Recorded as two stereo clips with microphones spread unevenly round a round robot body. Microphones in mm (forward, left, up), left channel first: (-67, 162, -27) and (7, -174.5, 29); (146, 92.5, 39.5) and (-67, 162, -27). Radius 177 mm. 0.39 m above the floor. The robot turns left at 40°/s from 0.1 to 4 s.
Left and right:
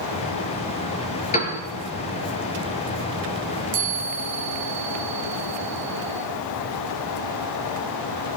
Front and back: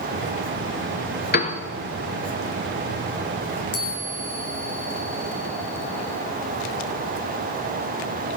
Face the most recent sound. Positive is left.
turn(degrees=-20)